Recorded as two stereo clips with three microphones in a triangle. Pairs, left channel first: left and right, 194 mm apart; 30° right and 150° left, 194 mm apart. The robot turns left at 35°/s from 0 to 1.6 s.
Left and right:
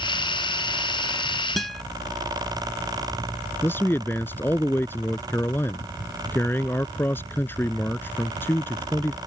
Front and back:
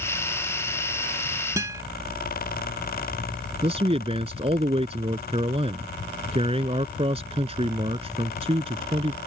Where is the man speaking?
160° left.